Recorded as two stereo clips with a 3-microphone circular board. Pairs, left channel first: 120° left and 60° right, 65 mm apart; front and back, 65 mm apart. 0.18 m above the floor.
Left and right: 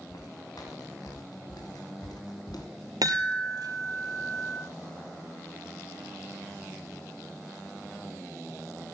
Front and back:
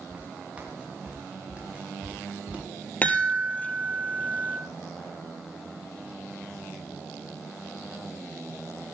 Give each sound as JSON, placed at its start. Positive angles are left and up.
{"t": 0.1, "sound": "footsteps", "azimuth_deg": 110, "distance_m": 6.5}
{"t": 3.0, "sound": "a chime", "azimuth_deg": -65, "distance_m": 2.5}